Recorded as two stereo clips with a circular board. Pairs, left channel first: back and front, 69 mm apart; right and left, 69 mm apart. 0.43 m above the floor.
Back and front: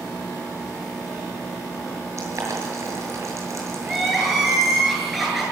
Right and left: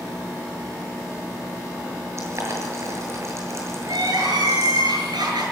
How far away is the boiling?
About 7.5 m.